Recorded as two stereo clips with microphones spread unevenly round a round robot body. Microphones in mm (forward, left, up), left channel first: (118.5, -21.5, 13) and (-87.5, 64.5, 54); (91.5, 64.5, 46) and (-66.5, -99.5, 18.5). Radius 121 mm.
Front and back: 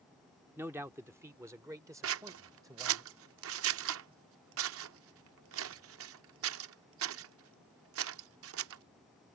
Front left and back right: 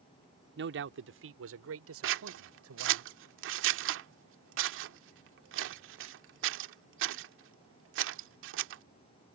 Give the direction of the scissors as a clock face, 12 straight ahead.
6 o'clock.